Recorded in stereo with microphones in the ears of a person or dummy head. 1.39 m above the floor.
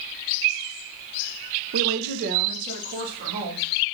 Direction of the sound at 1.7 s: 60° right (ahead or behind).